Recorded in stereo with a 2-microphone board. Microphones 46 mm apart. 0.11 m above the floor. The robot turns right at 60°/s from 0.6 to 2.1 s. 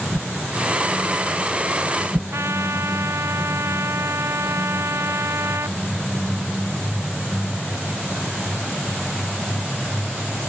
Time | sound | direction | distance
0.1 | a whoosh | 70° right (ahead or behind) | ?
2.3 | a trumpet | 75° right (ahead or behind) | ?